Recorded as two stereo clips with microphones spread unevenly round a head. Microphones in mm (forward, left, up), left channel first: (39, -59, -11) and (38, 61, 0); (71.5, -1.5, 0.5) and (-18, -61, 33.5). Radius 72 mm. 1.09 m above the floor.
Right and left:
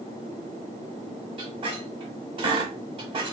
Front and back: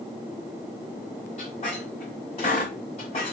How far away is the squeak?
About 1.3 m.